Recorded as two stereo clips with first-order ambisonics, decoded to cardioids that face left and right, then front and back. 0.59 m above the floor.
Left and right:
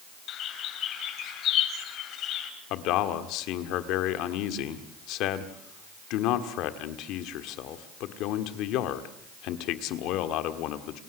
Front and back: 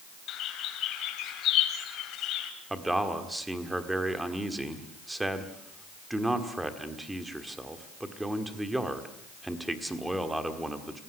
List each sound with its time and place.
0.3 s a bird: 45° left, 2.5 m
2.7 s a man speaking: 95° left, 1.6 m